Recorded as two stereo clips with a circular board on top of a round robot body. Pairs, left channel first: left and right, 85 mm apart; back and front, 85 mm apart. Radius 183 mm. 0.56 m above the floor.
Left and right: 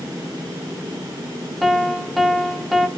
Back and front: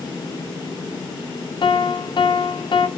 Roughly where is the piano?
Behind.